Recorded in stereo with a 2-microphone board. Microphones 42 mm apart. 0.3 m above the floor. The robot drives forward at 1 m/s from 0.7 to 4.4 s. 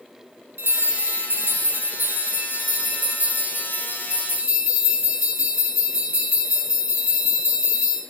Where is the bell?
75° right (ahead or behind), 2.5 m; by 8.0 s 40° right (ahead or behind), 4 m.